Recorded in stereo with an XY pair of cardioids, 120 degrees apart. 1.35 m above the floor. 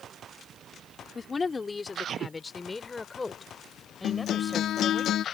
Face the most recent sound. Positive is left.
turn(degrees=60)